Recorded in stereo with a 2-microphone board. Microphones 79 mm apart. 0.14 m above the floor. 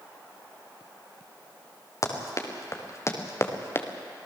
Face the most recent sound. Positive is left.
turn(degrees=30)  # may be behind; listen again after turning